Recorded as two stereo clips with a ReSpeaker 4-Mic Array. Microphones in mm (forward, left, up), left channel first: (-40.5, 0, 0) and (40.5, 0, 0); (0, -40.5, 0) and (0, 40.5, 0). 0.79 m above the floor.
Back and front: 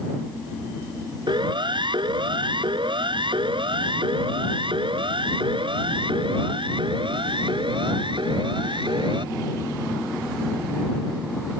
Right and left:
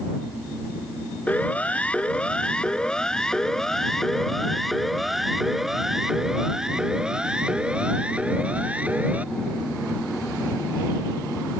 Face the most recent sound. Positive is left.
turn(degrees=20)